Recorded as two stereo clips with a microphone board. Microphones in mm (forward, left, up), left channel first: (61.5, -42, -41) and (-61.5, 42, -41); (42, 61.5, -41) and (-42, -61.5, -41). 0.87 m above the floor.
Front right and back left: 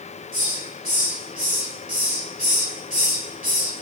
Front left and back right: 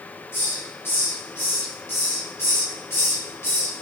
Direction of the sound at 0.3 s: 130° left.